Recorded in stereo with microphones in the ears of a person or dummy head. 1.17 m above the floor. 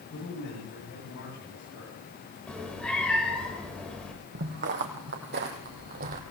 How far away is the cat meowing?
About 3 m.